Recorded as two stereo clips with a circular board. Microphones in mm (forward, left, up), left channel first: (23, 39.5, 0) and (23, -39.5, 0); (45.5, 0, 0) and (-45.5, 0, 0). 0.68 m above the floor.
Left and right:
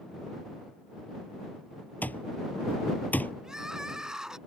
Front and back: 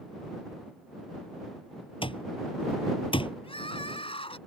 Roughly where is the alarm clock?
Ahead.